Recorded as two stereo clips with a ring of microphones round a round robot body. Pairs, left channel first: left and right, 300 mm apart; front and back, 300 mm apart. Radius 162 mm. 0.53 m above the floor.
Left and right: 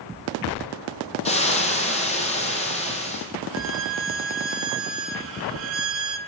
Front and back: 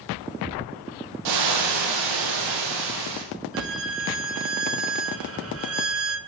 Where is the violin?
135° right, 1.7 m.